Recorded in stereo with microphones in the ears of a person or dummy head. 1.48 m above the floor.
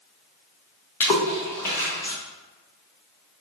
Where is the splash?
10° left (ahead or behind), 0.6 m.